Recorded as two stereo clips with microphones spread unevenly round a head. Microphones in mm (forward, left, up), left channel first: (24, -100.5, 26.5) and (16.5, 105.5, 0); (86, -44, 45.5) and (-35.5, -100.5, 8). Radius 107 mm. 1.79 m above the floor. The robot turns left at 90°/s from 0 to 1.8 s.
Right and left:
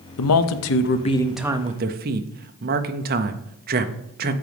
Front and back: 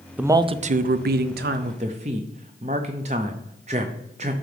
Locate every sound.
0.2 s a man speaking: 70° right, 0.6 m; by 4.3 s 145° left, 0.6 m